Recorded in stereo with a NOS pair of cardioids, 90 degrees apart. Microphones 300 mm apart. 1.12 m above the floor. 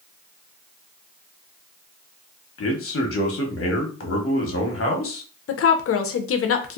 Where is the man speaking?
45° left, 1.2 m.